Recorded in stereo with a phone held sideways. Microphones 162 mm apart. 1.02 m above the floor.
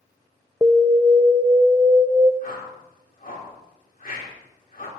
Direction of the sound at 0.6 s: 20° right (ahead or behind).